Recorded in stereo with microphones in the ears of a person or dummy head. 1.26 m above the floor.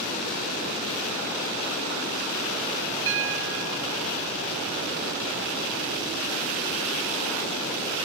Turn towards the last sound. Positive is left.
turn(degrees=-70)  # may be behind; listen again after turning